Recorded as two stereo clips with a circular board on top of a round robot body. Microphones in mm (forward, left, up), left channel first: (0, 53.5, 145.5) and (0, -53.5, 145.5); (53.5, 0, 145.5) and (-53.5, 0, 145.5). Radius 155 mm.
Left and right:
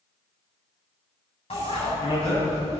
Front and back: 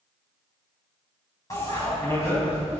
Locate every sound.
1.5 s a bicycle bell: 60° left, 5.5 m